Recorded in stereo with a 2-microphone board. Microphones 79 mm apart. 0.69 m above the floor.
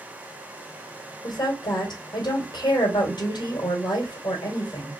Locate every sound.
1.2 s a woman speaking: 70° left (ahead or behind), 2.5 m